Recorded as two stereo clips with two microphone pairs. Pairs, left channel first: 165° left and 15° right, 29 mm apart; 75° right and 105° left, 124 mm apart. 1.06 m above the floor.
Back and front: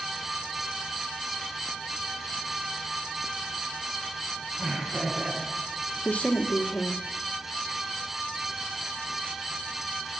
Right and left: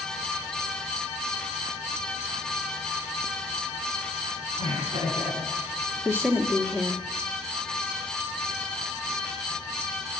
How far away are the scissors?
I don't hear scissors.